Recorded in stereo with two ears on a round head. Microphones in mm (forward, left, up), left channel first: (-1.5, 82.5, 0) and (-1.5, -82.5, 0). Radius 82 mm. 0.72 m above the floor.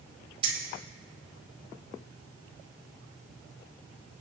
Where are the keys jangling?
30° right (ahead or behind), 3 m.